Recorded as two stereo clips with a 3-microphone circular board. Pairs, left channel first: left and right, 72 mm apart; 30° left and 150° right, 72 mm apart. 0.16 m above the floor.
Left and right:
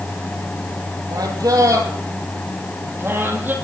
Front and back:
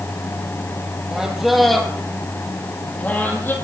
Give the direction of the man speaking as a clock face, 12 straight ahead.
2 o'clock.